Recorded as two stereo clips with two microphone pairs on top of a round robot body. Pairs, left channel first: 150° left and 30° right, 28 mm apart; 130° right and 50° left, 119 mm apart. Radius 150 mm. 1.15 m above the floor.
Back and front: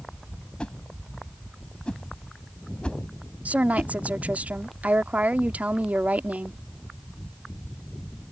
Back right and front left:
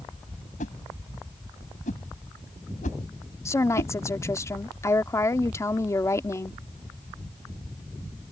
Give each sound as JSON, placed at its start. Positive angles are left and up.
{"t": 0.6, "sound": "a whoosh", "azimuth_deg": -155}
{"t": 3.5, "sound": "a woman speaking", "azimuth_deg": -65}